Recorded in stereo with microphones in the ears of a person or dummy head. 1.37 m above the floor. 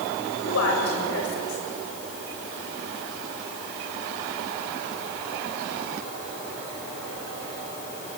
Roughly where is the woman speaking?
Left.